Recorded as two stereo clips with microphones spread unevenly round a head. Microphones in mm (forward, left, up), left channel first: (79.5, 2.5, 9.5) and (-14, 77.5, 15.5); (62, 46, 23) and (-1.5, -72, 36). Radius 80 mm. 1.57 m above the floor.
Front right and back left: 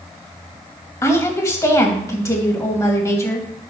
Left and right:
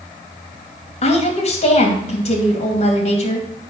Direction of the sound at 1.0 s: 25° left.